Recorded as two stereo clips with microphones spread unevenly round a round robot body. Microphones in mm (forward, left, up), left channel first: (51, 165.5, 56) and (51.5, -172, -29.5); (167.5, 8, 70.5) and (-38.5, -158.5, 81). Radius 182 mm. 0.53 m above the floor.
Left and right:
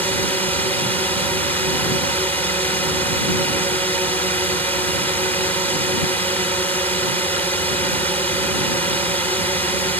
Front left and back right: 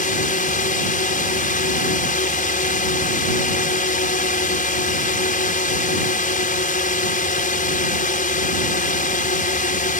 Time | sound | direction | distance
0.0 | a drone | 5° right | ?